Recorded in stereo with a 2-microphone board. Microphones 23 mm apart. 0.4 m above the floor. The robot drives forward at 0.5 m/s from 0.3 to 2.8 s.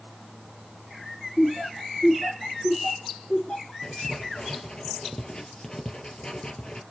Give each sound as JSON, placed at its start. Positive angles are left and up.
{"t": 1.4, "sound": "laughter", "side_deg": 45, "distance_m": 4.5}
{"t": 3.8, "sound": "writing", "side_deg": 40, "distance_m": 3.0}